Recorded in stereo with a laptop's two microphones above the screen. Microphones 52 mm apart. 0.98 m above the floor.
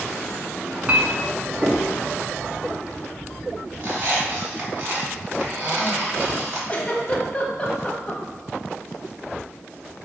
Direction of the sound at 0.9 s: 30° right (ahead or behind).